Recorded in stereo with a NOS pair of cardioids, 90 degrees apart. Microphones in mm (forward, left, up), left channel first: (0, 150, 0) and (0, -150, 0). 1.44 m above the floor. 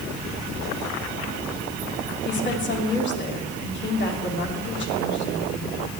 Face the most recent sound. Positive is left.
turn(degrees=35)